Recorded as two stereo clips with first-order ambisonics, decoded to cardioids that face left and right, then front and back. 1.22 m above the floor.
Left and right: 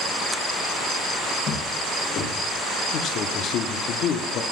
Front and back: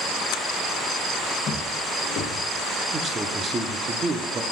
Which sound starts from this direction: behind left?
A man speaking, at 2.9 s.